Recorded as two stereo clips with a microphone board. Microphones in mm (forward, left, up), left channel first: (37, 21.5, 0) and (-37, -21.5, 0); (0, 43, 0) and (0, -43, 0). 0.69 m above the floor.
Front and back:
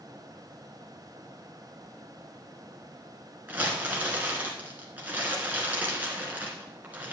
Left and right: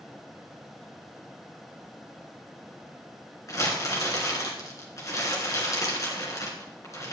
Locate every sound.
3.5 s crumpling: 140° left, 2.5 m